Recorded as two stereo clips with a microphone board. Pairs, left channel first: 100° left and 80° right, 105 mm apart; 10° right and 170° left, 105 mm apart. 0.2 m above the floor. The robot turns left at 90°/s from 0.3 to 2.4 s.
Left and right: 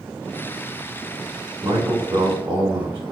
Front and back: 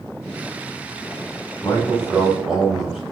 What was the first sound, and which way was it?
A man speaking, 50° right.